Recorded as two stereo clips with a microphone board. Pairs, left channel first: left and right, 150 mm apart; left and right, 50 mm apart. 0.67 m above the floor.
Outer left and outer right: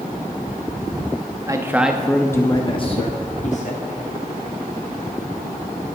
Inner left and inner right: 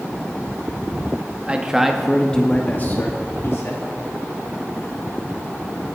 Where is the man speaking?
25° right (ahead or behind), 0.7 m; by 3.9 s 55° left (ahead or behind), 1.3 m.